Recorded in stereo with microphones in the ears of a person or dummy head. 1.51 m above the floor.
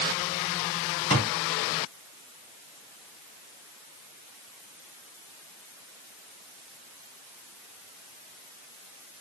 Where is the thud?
30° left (ahead or behind), 1.1 m.